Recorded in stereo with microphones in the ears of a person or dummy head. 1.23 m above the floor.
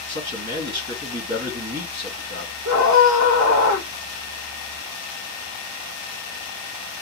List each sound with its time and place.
0.1 s a man speaking: 70° right (ahead or behind), 1.7 m
2.6 s a scream: 85° right, 1.2 m